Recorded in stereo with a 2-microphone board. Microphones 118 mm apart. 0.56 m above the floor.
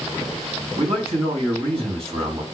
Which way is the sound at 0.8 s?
60° right (ahead or behind).